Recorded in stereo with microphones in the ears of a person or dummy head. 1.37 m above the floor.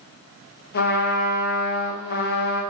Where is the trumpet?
50° left (ahead or behind), 1.4 m.